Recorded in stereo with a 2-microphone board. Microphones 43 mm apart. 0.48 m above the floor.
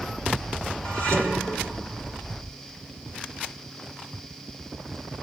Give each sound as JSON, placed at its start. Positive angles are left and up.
{"t": 0.8, "sound": "dishes clattering", "side_deg": 45, "distance_m": 4.0}